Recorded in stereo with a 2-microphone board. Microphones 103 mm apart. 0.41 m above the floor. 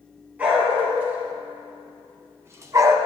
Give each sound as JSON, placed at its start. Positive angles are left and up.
{"t": 0.4, "sound": "a dog barking", "side_deg": -15, "distance_m": 3.5}